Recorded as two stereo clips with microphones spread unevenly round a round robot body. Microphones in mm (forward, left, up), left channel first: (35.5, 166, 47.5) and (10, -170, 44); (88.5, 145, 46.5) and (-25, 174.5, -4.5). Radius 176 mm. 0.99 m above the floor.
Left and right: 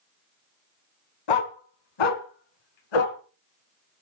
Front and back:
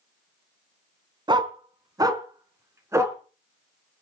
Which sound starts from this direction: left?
A dog barking, at 1.3 s.